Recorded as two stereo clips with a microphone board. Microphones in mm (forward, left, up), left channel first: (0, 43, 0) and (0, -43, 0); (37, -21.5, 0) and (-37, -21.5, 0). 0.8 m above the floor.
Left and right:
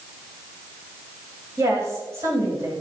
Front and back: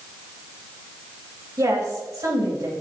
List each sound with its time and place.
1.6 s a woman speaking: 145° right, 3.5 m